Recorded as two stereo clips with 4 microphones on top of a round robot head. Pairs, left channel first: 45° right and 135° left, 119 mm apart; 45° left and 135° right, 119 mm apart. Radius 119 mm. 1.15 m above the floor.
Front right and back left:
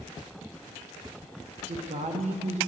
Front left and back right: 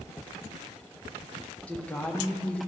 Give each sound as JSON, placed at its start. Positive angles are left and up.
{"t": 1.7, "sound": "a woman speaking", "azimuth_deg": 125, "distance_m": 1.2}